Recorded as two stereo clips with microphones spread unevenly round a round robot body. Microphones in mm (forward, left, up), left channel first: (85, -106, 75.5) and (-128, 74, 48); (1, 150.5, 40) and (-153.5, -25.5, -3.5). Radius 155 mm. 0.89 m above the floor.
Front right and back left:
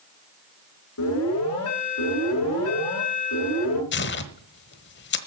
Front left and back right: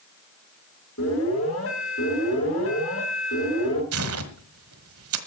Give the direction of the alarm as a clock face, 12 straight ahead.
12 o'clock.